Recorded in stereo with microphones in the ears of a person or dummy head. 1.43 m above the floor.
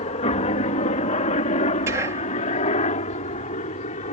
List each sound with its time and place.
0.0 s a helicopter: 35° left (ahead or behind); by 4.1 s 40° left (ahead or behind)
1.9 s whispering: 15° right (ahead or behind)